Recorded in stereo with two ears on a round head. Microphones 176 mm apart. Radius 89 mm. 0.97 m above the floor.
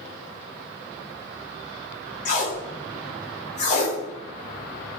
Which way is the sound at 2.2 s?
35° left (ahead or behind).